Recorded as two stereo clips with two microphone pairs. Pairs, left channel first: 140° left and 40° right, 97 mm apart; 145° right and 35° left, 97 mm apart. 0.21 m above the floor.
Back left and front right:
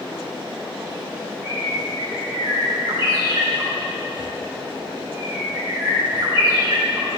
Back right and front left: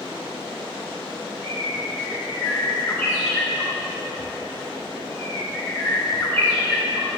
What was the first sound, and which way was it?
A bird, 85° right.